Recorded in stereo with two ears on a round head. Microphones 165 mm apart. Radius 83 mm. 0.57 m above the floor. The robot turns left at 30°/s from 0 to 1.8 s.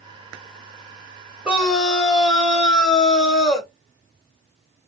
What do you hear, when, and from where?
1.4 s a scream: 5° right (ahead or behind), 1.9 m; by 3.7 s 5° left (ahead or behind), 1.9 m